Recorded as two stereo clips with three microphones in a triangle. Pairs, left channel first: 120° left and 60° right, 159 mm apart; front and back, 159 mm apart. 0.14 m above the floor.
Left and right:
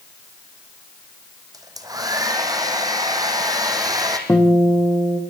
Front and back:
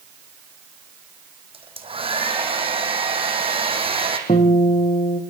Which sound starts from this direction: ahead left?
A guitar, at 4.3 s.